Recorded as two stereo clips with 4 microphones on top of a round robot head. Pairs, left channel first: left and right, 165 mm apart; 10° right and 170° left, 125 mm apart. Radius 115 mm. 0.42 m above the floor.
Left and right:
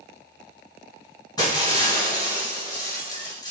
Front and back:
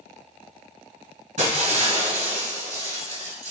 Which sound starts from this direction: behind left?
Breaking glass, at 1.4 s.